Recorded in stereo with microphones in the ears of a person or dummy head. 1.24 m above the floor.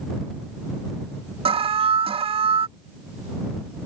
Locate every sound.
1.4 s an alarm: 25° right (ahead or behind)